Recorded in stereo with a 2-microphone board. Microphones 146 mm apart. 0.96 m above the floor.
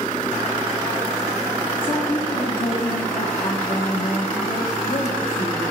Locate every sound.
1.8 s a woman speaking: 40° left (ahead or behind), 0.9 m